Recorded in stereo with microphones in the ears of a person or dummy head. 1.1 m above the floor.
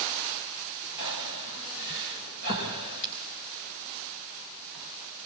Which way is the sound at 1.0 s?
70° left (ahead or behind).